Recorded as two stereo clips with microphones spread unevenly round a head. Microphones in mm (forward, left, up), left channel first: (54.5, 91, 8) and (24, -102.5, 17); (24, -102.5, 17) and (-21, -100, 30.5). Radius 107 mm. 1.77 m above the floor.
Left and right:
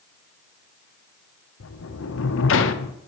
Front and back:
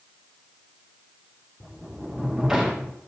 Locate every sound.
1.6 s a sliding door: 100° left, 0.7 m